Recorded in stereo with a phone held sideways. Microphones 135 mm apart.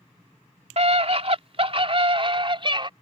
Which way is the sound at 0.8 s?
55° right (ahead or behind).